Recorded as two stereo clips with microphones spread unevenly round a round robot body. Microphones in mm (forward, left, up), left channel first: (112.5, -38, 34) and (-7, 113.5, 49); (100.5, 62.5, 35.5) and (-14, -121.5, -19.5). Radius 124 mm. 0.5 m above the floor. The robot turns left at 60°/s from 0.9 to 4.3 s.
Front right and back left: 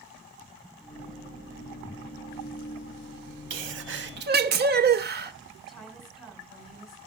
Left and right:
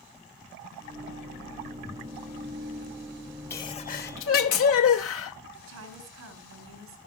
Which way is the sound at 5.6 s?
140° right.